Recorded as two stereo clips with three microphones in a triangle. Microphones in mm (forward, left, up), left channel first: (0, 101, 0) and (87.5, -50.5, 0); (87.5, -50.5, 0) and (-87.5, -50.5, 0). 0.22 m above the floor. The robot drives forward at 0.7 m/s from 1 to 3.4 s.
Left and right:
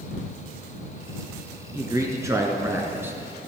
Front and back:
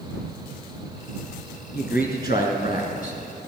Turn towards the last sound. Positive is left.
turn(degrees=15)